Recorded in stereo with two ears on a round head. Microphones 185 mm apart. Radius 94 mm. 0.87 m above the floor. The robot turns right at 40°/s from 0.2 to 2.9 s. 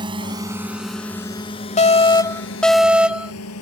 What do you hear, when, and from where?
0.0 s a drone: 20° right (ahead or behind); by 3.6 s 75° left (ahead or behind)
1.8 s an alarm: 140° left; by 3.3 s 175° right